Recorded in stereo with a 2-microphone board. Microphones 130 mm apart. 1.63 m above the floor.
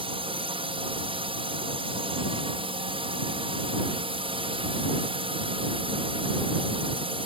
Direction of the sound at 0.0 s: 45° right (ahead or behind).